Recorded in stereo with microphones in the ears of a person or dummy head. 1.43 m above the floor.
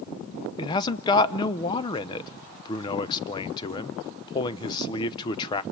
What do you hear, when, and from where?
0.6 s a man speaking: 25° left (ahead or behind), 0.8 m